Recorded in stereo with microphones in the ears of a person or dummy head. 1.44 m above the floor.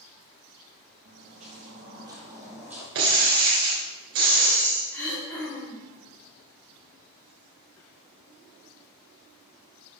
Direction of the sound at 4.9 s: 15° left (ahead or behind).